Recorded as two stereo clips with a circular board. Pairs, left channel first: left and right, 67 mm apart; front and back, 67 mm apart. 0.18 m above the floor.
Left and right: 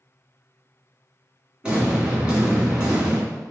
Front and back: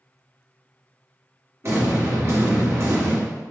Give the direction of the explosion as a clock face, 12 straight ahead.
5 o'clock.